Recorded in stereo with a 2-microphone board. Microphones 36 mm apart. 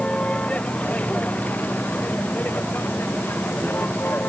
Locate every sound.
0.0 s a vehicle: 30° left (ahead or behind); by 4.3 s 65° left (ahead or behind)